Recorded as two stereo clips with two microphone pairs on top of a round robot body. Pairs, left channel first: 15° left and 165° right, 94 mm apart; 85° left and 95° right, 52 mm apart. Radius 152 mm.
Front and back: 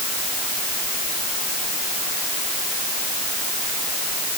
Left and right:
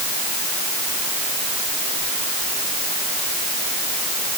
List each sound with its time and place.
Only background noise.